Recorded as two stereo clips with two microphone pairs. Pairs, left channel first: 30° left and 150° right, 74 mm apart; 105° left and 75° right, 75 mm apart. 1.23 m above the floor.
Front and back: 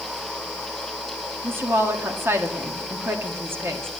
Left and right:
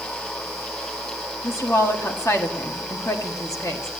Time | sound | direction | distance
1.4 | a woman speaking | 155° left | 1.8 m